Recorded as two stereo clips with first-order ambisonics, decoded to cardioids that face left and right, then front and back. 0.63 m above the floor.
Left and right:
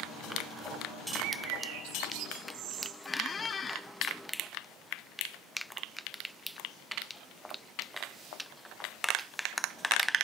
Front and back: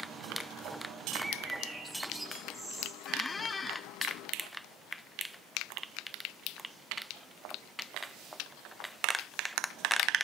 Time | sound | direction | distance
1.2 | a bird | 100° right | 4 m
3.0 | a squeak | 55° left | 0.5 m